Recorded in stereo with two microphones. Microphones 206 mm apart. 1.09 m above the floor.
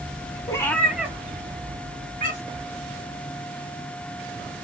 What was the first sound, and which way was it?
A cat meowing, 20° left (ahead or behind).